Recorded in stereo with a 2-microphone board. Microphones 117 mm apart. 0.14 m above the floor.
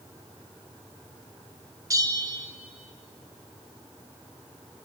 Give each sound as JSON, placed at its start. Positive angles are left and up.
{"t": 1.9, "sound": "a bell", "side_deg": -30, "distance_m": 0.6}